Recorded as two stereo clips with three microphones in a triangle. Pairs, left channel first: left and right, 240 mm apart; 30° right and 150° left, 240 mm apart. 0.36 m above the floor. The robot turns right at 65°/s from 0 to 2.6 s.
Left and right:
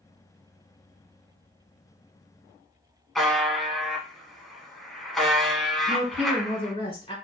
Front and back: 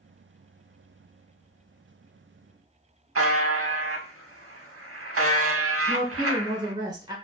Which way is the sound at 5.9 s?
105° left.